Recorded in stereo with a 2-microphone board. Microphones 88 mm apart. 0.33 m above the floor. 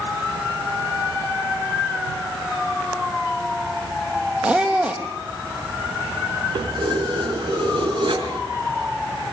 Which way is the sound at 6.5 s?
65° right (ahead or behind).